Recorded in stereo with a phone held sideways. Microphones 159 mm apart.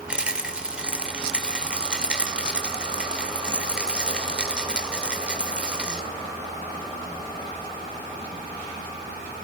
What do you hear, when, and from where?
0.1 s a rattle: 5° right (ahead or behind), 2 m